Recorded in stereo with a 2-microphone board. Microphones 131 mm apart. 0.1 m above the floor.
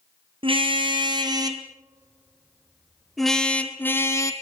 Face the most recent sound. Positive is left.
turn(degrees=25)  # may be behind; listen again after turning